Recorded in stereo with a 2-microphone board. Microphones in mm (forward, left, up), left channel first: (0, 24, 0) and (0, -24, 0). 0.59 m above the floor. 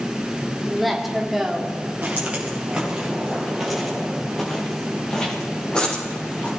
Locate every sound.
0.6 s a woman speaking: centre (ahead or behind), 1.2 m; by 1.8 s 5° right (ahead or behind), 1.7 m
2.0 s footsteps: 30° right (ahead or behind), 4.5 m; by 6.5 s 25° left (ahead or behind), 6 m